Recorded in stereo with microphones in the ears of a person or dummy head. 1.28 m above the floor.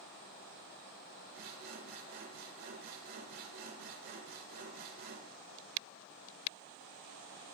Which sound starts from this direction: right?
Sawing, at 1.3 s.